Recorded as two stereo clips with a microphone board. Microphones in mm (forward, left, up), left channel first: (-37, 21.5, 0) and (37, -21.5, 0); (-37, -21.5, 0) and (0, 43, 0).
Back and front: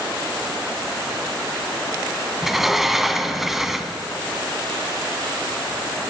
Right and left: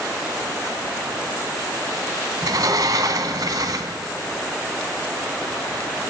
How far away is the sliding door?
About 0.9 m.